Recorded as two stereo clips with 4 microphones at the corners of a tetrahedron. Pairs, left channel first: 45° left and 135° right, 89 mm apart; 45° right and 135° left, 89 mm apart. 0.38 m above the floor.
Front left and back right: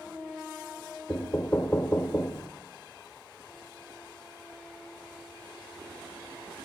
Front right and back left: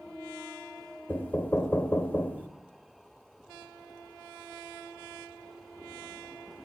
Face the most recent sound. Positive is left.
turn(degrees=5)